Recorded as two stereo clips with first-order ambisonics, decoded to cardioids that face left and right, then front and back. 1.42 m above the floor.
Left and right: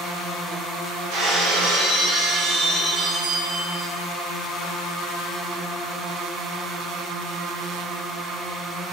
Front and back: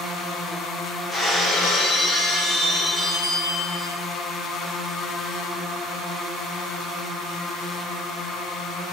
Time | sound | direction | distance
1.1 | breaking glass | 105° right | 6.5 m